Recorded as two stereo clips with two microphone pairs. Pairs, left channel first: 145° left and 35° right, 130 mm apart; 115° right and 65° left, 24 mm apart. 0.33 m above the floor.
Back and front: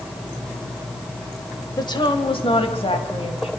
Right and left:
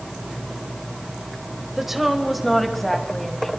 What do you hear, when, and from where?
1.8 s a woman speaking: 135° left, 1.7 m; by 3.5 s 175° left, 3 m